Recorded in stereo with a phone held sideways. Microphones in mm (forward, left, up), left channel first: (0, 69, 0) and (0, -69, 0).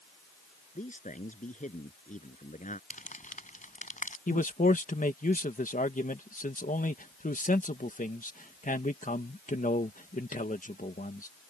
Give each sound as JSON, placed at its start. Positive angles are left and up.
{"t": 0.8, "sound": "a man speaking", "side_deg": 70}
{"t": 2.9, "sound": "crumpling", "side_deg": 75}
{"t": 4.3, "sound": "a man speaking", "side_deg": 75}